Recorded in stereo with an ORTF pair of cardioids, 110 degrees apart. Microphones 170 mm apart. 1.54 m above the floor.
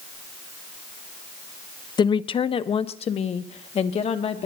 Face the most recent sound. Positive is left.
turn(degrees=40)